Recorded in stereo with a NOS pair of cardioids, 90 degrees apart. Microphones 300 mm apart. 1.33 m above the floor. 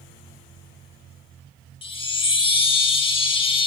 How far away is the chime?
About 0.8 m.